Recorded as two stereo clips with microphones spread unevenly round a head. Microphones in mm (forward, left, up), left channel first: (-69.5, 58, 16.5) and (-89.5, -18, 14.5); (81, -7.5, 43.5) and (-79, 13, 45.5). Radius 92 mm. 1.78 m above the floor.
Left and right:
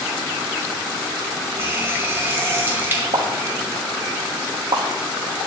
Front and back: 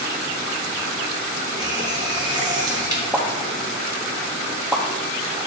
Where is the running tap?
140° right, 1.0 m.